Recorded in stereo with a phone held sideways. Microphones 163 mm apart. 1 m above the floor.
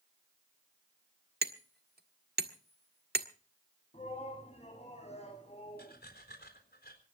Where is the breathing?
75° left (ahead or behind), 4 m.